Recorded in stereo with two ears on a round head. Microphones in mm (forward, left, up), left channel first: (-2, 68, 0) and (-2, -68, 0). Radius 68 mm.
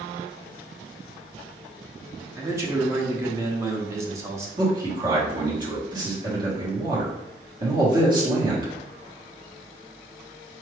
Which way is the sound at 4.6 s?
30° right (ahead or behind).